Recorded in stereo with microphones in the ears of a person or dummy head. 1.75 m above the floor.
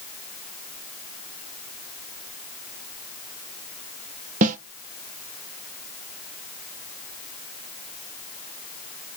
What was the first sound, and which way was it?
A snare drum, 45° right (ahead or behind).